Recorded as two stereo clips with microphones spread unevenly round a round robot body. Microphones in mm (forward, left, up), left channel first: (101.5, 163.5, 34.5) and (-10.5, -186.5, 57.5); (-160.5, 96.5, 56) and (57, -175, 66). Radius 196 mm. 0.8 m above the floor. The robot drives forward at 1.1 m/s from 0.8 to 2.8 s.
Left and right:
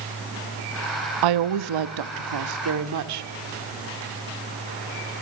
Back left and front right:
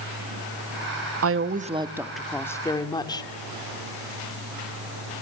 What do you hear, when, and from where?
1.2 s a woman speaking: 95° right, 1.0 m; by 3.3 s 155° right, 2 m